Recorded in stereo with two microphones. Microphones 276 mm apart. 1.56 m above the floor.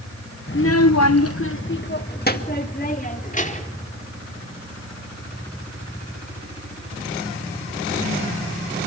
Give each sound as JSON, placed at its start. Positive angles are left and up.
{"t": 0.5, "sound": "a child speaking", "side_deg": 35, "distance_m": 0.8}